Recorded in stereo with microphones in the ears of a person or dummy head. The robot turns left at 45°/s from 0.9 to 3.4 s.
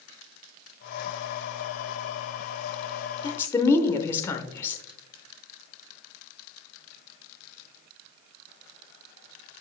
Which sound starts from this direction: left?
A woman speaking, at 3.2 s.